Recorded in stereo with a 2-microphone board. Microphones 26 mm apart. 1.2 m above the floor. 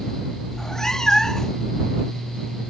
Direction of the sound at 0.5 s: 20° left (ahead or behind).